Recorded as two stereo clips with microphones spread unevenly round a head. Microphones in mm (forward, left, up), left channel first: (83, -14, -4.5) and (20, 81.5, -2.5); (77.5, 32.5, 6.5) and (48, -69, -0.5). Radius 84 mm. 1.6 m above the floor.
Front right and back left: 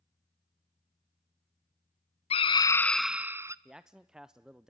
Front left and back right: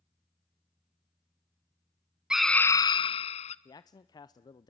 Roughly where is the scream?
Ahead right.